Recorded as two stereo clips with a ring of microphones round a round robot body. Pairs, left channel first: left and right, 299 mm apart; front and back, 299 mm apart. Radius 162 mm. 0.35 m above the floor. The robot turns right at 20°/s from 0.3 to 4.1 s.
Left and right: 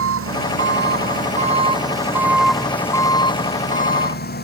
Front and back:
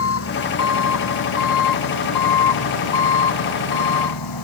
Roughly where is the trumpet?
No trumpet in this recording.